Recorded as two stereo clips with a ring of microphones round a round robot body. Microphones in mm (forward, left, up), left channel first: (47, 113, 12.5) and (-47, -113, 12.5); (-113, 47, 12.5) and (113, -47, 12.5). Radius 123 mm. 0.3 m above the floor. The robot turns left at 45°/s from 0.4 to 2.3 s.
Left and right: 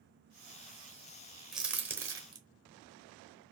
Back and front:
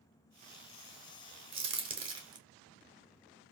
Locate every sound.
1.5 s a crack: 25° right, 0.8 m; by 2.4 s 60° right, 0.8 m